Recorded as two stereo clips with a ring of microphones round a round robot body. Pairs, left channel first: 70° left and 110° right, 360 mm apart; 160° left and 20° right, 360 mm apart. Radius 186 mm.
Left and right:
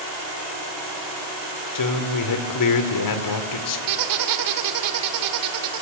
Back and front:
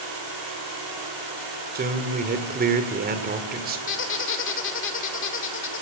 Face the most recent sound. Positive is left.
turn(degrees=-145)